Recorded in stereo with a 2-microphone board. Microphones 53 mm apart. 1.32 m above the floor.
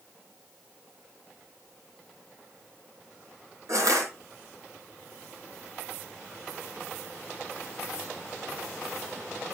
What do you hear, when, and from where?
3.7 s crushing: 80° right, 5 m